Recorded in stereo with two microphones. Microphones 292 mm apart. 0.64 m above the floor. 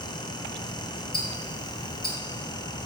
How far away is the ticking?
About 1.1 m.